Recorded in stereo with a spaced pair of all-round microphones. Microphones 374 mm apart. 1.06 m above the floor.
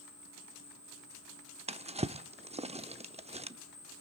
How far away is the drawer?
About 0.6 m.